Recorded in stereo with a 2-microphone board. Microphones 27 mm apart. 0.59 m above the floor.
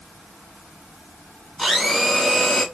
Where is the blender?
5° right (ahead or behind), 2 m.